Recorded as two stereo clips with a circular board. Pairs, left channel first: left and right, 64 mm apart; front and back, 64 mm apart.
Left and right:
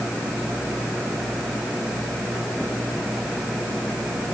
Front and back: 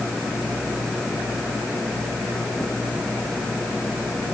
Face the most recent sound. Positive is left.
No sound to turn to.